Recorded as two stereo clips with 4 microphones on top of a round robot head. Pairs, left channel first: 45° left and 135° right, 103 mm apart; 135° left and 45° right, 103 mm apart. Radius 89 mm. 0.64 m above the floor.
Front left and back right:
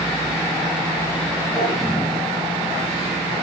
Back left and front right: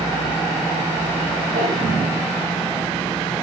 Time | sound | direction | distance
1.6 | a drawer | 10° right | 6 m